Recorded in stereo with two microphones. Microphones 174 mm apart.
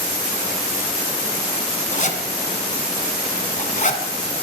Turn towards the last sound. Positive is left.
turn(degrees=45)  # may be behind; listen again after turning